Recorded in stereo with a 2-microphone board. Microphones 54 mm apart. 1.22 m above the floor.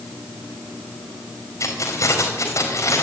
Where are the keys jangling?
70° left (ahead or behind), 4.5 m.